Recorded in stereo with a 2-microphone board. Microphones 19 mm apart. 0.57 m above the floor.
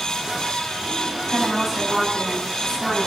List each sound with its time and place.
1.3 s a woman speaking: 35° right (ahead or behind), 5 m; by 3.1 s 25° right (ahead or behind), 6 m